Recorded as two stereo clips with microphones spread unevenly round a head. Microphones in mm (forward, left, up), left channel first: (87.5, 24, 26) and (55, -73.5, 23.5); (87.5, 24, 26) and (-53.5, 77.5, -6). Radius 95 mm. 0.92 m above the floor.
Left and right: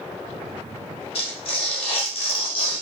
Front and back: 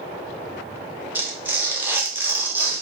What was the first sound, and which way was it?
Tearing paper, 75° left.